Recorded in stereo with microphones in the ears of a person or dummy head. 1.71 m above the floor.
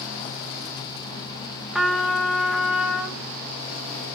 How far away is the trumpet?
About 1.0 m.